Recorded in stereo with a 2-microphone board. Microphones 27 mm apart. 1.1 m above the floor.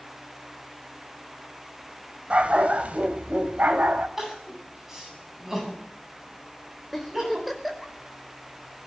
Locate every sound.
2.3 s a dog barking: 55° right (ahead or behind), 2.5 m; by 4.1 s 75° right (ahead or behind), 2.5 m
4.2 s crying: 15° right (ahead or behind), 8.5 m
6.9 s a giggle: 5° right (ahead or behind), 4.5 m